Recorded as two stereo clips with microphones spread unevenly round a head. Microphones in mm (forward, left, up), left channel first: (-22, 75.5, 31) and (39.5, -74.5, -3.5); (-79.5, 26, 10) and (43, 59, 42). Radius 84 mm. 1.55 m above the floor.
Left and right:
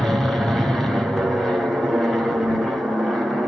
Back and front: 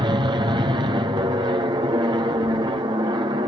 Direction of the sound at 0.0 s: Straight ahead.